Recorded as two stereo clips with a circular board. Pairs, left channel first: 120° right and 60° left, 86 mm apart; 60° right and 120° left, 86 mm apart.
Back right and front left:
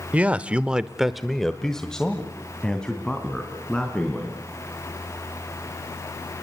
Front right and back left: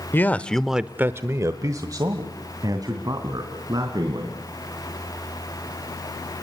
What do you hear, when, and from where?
0.1 s a man speaking: 10° right, 1.0 m; by 4.4 s 160° left, 4.5 m